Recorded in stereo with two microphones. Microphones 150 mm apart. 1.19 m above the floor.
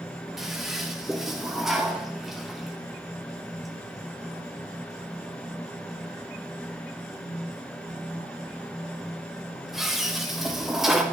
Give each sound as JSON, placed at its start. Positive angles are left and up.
{"t": 0.4, "sound": "a toilet flushing", "side_deg": 0, "distance_m": 0.9}